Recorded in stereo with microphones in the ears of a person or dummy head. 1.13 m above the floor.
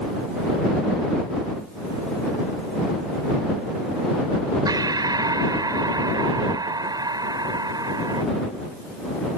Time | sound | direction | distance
4.7 | breathing | 20° right (ahead or behind) | ?